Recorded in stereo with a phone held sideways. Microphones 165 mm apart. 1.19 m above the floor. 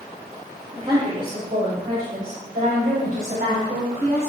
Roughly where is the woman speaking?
Right.